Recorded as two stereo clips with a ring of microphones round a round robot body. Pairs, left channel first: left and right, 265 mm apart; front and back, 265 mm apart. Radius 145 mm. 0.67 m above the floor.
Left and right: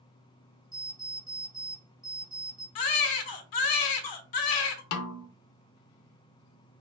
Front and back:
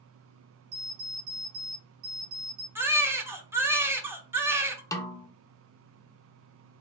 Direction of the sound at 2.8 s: 100° left.